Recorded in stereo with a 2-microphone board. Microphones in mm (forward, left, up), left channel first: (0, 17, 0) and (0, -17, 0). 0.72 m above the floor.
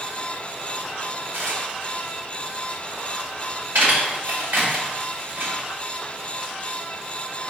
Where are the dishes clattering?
80° right, 1.9 m.